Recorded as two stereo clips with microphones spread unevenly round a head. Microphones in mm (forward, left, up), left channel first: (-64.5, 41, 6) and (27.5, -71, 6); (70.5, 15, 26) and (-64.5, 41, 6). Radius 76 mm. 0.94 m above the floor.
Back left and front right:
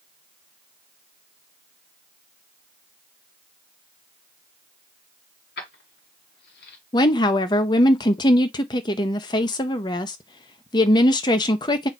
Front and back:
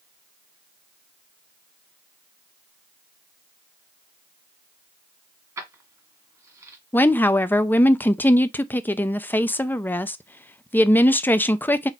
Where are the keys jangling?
100° left, 1.7 m.